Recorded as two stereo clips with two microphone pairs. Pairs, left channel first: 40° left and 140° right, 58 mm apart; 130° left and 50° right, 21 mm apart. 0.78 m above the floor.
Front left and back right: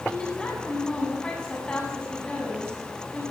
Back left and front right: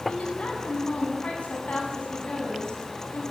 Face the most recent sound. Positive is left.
turn(degrees=115)